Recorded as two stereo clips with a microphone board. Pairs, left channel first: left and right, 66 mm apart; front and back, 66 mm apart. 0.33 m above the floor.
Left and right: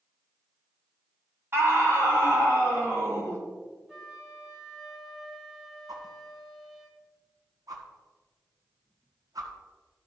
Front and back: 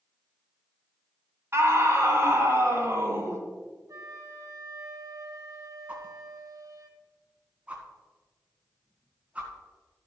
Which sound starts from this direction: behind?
A flute, at 3.9 s.